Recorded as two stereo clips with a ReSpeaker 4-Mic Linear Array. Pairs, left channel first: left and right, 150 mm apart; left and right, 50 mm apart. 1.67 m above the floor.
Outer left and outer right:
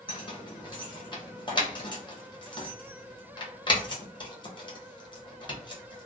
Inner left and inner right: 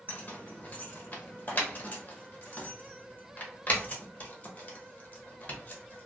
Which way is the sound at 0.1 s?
35° left (ahead or behind).